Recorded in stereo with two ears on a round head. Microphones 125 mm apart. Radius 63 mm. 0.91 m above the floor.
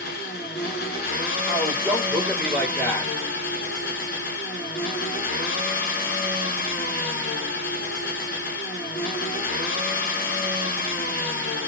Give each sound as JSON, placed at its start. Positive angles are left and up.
{"t": 0.0, "sound": "an engine running", "side_deg": 75, "distance_m": 1.4}
{"t": 1.5, "sound": "a man speaking", "side_deg": -20, "distance_m": 1.9}